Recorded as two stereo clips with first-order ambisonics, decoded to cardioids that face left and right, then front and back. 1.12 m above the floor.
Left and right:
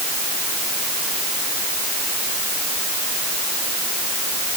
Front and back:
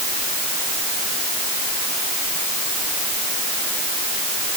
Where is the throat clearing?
I don't hear throat clearing.